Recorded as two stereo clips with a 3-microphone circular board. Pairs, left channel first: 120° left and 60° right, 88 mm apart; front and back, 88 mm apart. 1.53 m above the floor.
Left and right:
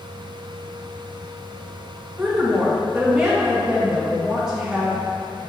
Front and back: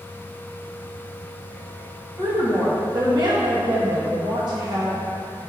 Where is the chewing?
No chewing in this recording.